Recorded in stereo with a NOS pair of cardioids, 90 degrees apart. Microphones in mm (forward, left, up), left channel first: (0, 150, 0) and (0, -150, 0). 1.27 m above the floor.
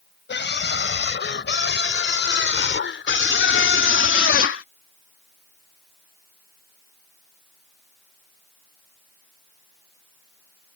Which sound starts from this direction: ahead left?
A scream, at 0.3 s.